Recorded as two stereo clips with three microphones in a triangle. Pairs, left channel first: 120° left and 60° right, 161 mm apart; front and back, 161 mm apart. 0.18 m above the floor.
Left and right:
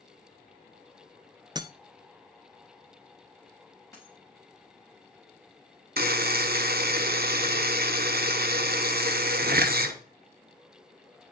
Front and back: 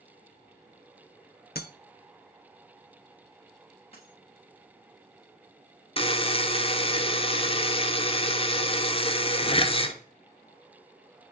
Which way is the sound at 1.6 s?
5° left.